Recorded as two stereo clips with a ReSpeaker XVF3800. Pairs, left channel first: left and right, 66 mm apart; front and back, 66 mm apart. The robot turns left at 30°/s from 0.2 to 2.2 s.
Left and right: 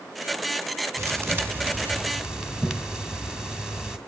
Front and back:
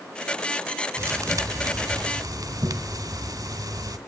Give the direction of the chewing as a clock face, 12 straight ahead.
No chewing in this recording.